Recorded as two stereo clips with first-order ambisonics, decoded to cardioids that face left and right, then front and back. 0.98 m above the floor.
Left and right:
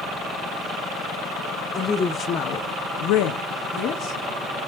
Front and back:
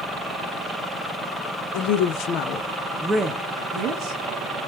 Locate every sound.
1.7 s a woman speaking: 10° left, 1.1 m; by 4.2 s 135° left, 1.4 m